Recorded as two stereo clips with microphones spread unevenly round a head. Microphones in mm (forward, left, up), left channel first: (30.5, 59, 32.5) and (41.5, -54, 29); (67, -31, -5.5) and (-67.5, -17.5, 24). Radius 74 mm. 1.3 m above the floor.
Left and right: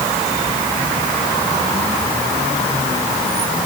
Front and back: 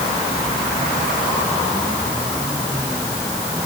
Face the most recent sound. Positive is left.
No sound to turn to.